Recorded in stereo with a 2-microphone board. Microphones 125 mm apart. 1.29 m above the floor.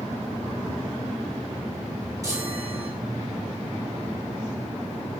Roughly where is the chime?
Right.